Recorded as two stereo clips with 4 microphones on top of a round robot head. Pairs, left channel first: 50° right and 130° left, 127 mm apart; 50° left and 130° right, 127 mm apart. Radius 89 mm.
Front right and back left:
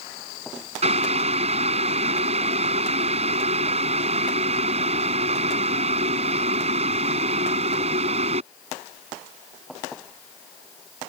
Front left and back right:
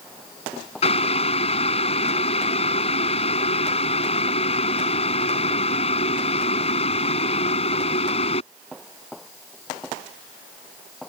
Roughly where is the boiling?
Left.